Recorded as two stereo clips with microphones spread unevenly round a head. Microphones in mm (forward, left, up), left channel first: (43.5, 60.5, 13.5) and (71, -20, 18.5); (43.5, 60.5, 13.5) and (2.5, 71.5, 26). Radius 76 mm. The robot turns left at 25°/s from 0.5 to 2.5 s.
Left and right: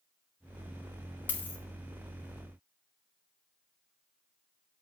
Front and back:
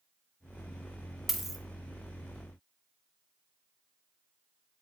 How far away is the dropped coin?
About 0.8 m.